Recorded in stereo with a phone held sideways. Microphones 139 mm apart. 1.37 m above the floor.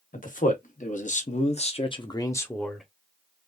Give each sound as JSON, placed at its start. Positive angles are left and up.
{"t": 0.1, "sound": "a man speaking", "side_deg": 75, "distance_m": 1.4}